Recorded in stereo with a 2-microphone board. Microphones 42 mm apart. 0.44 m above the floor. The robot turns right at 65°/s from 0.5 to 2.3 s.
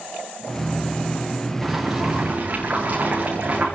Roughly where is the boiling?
Behind.